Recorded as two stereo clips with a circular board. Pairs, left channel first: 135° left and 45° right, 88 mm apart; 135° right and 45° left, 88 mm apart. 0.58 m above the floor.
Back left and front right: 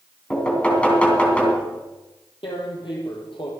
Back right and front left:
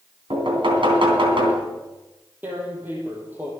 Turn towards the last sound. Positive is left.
turn(degrees=115)